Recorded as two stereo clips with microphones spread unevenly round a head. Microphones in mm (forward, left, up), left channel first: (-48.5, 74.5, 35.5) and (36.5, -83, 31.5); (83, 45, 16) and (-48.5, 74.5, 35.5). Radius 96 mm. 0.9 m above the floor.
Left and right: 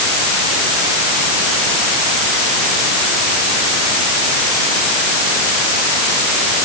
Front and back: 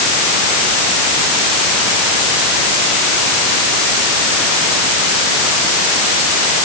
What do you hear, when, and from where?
Only background noise.